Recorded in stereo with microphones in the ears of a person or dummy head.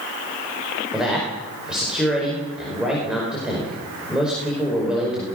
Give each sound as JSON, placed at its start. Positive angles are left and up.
{"t": 0.9, "sound": "a man speaking", "side_deg": -5, "distance_m": 5.0}